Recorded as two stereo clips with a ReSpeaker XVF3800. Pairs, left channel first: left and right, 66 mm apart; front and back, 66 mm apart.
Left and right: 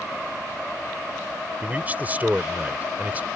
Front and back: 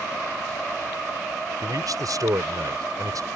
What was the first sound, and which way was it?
A man speaking, 155° right.